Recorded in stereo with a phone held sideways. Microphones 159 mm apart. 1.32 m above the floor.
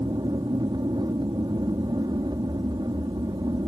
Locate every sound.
0.0 s an aircraft: 25° right (ahead or behind)